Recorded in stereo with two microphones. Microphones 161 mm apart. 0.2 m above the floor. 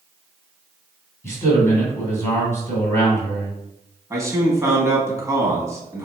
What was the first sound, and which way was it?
A man speaking, 15° left (ahead or behind).